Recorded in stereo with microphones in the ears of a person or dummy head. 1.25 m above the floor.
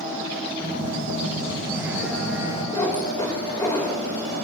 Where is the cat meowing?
15° left (ahead or behind), 1.7 m.